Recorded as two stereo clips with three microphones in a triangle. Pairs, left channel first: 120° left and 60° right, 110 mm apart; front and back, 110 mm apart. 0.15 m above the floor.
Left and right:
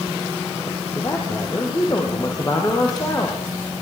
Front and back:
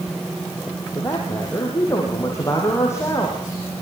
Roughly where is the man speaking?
Ahead left.